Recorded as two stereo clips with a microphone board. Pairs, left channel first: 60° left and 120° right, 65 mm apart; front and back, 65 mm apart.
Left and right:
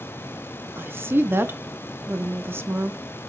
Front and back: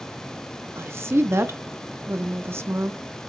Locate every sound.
0.8 s a woman speaking: 155° right, 0.7 m